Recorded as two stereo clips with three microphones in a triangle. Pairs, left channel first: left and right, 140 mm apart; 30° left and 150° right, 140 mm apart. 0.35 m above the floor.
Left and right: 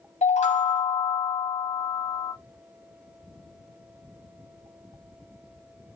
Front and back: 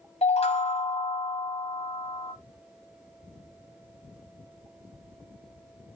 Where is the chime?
65° left, 1.0 m.